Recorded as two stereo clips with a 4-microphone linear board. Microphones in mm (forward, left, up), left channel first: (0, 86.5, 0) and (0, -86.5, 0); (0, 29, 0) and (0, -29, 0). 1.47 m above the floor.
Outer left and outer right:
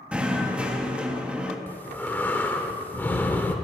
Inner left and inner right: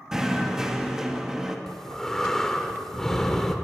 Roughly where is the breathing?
Centre.